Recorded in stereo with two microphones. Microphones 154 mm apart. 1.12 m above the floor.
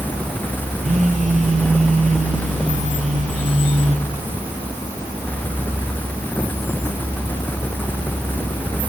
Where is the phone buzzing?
45° right (ahead or behind), 2.5 m.